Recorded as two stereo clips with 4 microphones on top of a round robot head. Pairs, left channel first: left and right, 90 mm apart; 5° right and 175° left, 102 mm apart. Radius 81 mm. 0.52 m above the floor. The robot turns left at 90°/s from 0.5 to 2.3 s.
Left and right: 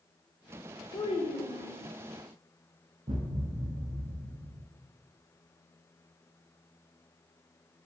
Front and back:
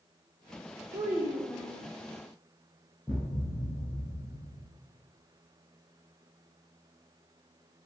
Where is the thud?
95° right, 0.6 m.